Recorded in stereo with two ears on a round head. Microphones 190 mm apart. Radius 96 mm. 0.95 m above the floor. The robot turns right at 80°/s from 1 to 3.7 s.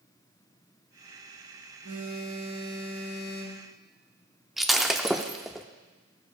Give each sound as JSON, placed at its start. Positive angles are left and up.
{"t": 1.8, "sound": "a phone buzzing", "azimuth_deg": -90, "distance_m": 3.5}
{"t": 4.6, "sound": "breaking glass", "side_deg": 0, "distance_m": 0.5}